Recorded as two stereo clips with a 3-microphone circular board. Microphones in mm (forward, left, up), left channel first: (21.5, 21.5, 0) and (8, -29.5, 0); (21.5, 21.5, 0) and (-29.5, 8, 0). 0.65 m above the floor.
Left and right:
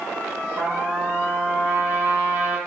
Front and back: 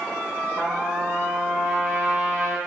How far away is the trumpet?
About 3 m.